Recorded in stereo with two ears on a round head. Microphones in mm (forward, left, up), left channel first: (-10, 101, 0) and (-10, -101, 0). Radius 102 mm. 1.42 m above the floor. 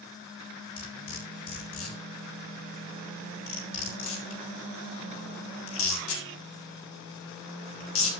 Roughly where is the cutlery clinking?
Left.